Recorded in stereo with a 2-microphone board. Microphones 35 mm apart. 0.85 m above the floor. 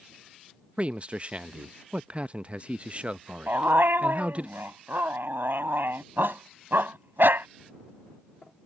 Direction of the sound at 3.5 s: 80° right.